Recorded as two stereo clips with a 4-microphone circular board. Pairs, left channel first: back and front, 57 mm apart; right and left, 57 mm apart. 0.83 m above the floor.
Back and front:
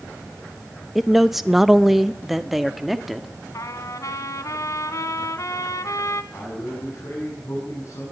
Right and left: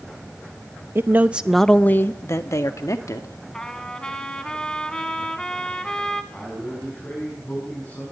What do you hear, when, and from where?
0.9 s a man speaking: 90° left, 0.9 m; by 3.4 s 85° right, 2 m
3.5 s a trumpet: 165° right, 1.7 m
6.3 s a man speaking: 145° right, 7.5 m